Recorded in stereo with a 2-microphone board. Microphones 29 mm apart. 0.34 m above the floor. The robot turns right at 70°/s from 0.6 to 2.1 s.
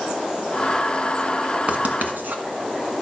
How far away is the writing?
About 1.3 m.